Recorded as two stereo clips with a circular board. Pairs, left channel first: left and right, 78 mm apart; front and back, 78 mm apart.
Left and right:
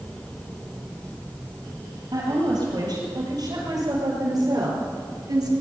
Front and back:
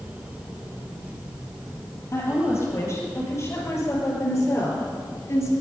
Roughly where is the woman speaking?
Ahead right.